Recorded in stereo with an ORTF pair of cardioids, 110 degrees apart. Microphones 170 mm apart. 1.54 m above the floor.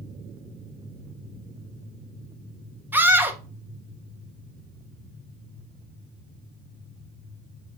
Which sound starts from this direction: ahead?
A scream, at 2.9 s.